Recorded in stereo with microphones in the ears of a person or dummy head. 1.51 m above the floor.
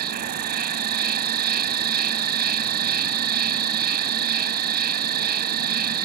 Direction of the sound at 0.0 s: 50° right (ahead or behind).